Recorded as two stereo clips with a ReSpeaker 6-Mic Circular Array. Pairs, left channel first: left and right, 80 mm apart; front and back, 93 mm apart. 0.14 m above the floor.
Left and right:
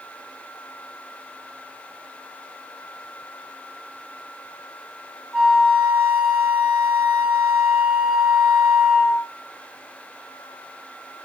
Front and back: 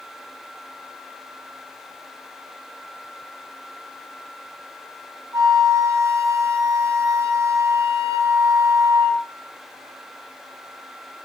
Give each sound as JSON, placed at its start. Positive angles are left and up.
{"t": 5.3, "sound": "a flute", "azimuth_deg": -165, "distance_m": 2.0}